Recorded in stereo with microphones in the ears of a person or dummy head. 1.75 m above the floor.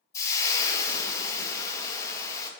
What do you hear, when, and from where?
0.1 s frying: 20° left (ahead or behind), 0.9 m